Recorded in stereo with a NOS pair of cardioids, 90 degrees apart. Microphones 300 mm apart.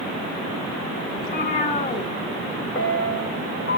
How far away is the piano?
About 3 m.